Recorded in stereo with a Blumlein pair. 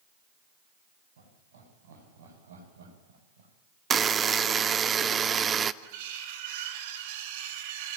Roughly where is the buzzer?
Ahead.